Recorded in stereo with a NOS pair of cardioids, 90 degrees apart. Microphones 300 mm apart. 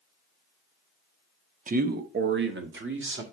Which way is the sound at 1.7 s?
25° right.